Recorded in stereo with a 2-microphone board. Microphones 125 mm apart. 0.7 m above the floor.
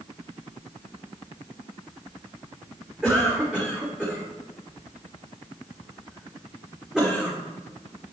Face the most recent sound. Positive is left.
turn(degrees=-5)  # may be behind; listen again after turning